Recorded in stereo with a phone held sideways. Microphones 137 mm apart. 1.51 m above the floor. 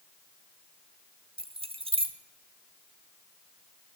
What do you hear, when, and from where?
1.4 s keys jangling: 40° right (ahead or behind), 0.6 m